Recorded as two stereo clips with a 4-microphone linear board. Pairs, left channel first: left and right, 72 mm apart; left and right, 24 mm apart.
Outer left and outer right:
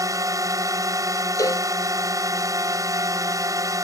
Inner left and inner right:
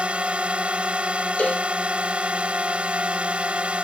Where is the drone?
50° right (ahead or behind).